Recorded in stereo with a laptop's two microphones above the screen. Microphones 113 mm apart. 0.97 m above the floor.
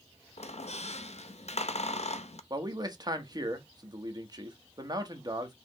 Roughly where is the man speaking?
Right.